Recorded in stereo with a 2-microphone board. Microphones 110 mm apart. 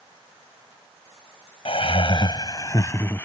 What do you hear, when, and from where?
1.6 s laughter: 65° left (ahead or behind); by 3.2 s 20° left (ahead or behind)